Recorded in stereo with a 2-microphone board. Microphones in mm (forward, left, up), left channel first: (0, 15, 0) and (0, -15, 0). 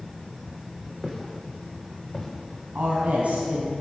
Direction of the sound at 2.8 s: 50° right (ahead or behind).